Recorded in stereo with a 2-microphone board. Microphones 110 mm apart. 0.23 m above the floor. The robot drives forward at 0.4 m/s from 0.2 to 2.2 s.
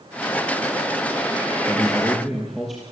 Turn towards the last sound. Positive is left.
turn(degrees=-5)  # may be behind; listen again after turning